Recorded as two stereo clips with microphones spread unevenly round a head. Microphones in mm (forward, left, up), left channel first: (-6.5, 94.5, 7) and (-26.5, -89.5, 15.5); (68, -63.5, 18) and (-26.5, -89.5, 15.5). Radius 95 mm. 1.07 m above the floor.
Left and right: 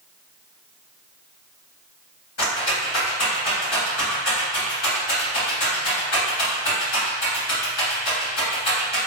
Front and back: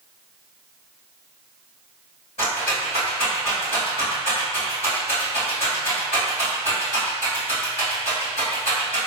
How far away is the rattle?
About 1.6 m.